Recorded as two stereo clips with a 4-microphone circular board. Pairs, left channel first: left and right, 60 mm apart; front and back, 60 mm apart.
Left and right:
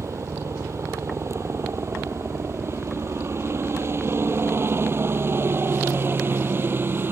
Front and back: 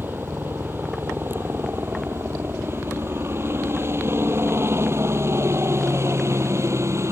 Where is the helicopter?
125° right; by 7.1 s 140° right.